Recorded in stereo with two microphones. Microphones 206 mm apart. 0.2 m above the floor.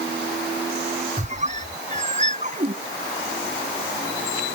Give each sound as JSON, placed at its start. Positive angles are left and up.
{"t": 1.2, "sound": "a squeak", "side_deg": -35}